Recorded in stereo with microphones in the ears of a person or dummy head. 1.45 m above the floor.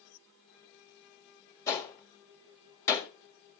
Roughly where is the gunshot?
Centre.